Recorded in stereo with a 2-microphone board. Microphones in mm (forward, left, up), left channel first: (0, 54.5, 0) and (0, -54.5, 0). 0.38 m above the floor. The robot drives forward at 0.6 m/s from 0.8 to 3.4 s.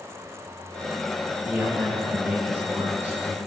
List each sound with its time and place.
1.4 s a man speaking: 15° right (ahead or behind), 1.9 m; by 3.4 s 20° right (ahead or behind), 1.2 m